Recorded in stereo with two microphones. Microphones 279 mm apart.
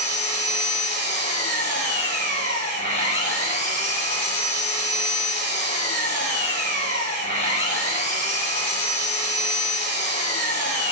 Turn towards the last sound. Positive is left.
turn(degrees=40)  # may be behind; listen again after turning